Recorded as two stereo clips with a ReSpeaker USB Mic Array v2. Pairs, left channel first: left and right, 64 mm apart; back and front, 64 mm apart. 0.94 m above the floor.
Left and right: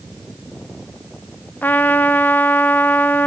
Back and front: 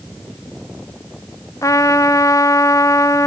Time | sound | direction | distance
1.6 | a trumpet | 150° left | 0.7 m